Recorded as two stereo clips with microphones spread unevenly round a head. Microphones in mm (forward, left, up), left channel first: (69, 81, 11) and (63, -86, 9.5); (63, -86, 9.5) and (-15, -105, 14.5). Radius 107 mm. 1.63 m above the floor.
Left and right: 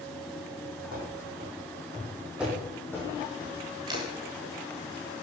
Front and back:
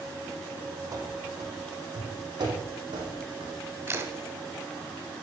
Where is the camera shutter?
145° right, 1.7 m.